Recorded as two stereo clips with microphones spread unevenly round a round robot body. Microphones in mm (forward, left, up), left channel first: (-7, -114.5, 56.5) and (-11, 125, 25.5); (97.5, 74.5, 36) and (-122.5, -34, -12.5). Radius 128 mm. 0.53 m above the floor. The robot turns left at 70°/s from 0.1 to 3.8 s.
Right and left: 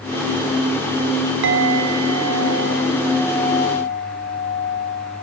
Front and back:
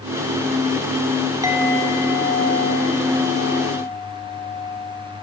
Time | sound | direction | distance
1.4 | a clink | 130° left | 3.5 m